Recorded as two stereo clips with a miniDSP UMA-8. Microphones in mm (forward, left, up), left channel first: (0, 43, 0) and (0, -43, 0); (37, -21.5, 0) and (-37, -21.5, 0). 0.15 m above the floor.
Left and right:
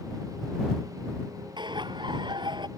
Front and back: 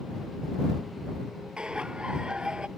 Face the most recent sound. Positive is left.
turn(degrees=-105)